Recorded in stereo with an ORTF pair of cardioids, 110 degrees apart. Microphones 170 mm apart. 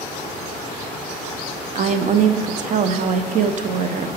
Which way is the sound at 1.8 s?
50° right.